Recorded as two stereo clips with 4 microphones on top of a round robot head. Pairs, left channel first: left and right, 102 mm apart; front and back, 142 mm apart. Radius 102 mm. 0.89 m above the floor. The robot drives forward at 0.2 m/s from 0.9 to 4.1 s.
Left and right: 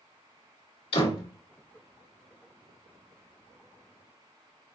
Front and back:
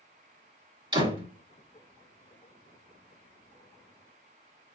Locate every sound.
0.9 s a door slam: 125° left, 2.5 m